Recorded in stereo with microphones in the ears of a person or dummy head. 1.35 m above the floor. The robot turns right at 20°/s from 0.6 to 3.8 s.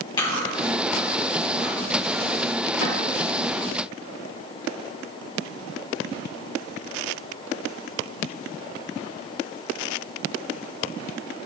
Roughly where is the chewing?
Centre.